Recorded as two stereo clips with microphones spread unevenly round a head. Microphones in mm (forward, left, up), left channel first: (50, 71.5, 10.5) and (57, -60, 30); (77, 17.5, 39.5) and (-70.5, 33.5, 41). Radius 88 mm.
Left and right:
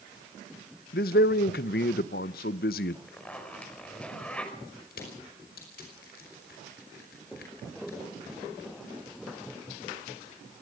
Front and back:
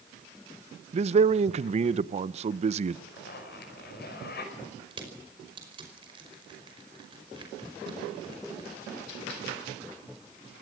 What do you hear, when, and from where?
0.9 s a man speaking: 125° left, 0.6 m
3.1 s a zipper: 10° left, 5 m
4.9 s crushing: 115° left, 5 m